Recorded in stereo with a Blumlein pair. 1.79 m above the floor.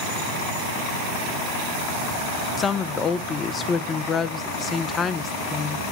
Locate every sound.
2.6 s a woman speaking: 20° left, 0.6 m